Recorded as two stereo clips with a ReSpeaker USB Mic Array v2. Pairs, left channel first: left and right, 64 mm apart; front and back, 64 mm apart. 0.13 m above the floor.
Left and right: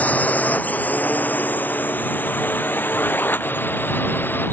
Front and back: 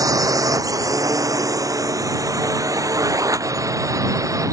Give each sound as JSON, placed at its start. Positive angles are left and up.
{"t": 0.0, "sound": "a drone", "azimuth_deg": 155}